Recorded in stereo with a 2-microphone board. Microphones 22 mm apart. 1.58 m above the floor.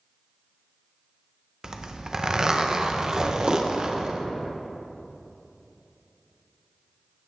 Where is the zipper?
25° right (ahead or behind), 0.7 m.